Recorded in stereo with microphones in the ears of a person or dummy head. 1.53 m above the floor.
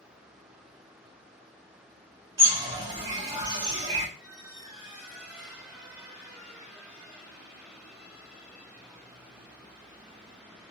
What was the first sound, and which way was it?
A bird, 25° right (ahead or behind).